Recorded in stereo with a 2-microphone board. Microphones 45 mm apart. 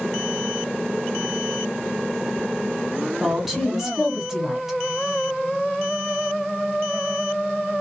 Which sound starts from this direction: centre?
A woman speaking, at 3.2 s.